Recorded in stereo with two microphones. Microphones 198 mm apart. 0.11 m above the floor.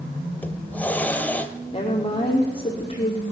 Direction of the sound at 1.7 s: 25° left (ahead or behind).